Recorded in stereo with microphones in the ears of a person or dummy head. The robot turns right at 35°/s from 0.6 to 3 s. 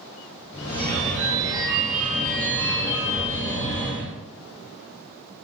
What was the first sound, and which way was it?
A phone ringing, 50° right.